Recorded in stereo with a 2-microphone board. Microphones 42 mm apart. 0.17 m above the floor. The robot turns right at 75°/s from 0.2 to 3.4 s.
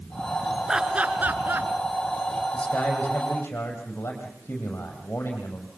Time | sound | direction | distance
0.7 | laughter | 15° right (ahead or behind) | 2.5 m
2.5 | a man speaking | 25° left | 6.5 m